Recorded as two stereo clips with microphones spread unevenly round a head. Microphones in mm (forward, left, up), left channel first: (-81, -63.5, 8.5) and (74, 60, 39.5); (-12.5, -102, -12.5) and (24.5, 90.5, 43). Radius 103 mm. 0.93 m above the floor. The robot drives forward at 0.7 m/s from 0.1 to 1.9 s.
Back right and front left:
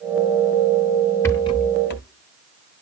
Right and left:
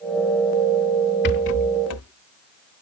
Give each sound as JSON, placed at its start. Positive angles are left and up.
{"t": 1.2, "sound": "a rattle", "azimuth_deg": -60, "distance_m": 0.8}